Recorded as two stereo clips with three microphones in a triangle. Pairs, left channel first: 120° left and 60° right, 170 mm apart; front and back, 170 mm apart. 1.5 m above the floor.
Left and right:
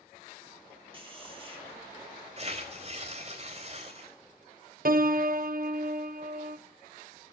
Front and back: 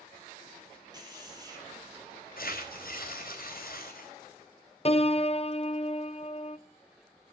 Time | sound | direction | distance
0.9 | a man speaking | 115° right | 6 m
2.4 | tearing paper | 15° right | 4 m
4.8 | a piano | 45° right | 0.6 m